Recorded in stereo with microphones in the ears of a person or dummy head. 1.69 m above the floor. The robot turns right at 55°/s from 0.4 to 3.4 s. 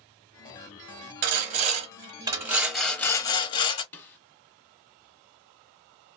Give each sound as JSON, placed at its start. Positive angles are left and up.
{"t": 1.2, "sound": "sawing", "azimuth_deg": -85, "distance_m": 0.7}
{"t": 3.9, "sound": "a snare drum", "side_deg": 10, "distance_m": 0.7}